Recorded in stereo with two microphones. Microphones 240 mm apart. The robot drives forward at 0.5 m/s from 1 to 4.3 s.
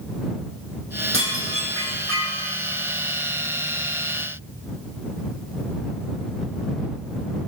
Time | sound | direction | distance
1.1 | dishes clattering | 60° right (ahead or behind) | 4.5 m